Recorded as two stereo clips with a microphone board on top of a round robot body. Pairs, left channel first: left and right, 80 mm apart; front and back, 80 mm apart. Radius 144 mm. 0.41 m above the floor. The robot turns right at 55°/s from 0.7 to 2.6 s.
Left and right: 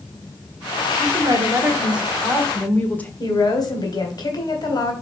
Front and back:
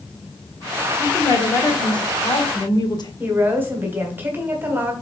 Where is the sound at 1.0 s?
65° right, 1.8 m; by 3.1 s 20° left, 1.8 m.